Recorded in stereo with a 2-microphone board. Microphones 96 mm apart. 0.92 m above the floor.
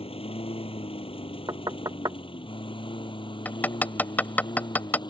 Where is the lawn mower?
75° left (ahead or behind); by 5.1 s 50° left (ahead or behind).